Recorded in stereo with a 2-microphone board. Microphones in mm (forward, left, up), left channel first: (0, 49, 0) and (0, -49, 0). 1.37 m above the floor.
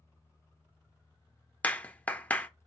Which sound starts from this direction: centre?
A clap, at 1.6 s.